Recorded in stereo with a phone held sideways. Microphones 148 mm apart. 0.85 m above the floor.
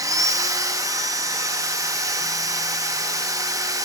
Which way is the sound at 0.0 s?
20° right (ahead or behind).